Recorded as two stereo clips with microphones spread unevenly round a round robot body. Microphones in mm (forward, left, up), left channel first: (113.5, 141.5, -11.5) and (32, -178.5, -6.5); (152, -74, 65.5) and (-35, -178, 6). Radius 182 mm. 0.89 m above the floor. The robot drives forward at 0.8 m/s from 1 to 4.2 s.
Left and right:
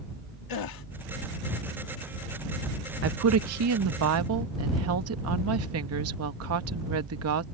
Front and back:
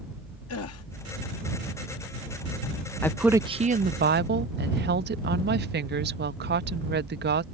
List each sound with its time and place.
0.5 s a gasp: 60° left
3.0 s a woman speaking: 65° right; by 7.4 s 150° right